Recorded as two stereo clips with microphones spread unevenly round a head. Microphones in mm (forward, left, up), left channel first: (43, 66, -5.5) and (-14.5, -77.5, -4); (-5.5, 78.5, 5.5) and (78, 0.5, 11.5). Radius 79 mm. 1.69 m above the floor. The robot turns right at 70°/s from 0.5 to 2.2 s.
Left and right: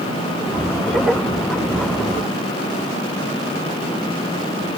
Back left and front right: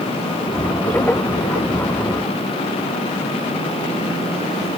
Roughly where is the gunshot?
I don't hear a gunshot.